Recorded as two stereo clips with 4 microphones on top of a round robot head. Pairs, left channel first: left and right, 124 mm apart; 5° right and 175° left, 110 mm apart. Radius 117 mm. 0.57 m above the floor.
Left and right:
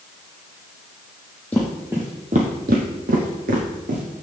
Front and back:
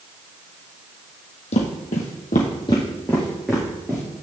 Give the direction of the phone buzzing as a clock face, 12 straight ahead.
I don't hear a phone buzzing.